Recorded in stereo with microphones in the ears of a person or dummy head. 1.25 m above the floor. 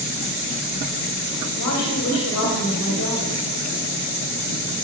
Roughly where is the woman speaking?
Left.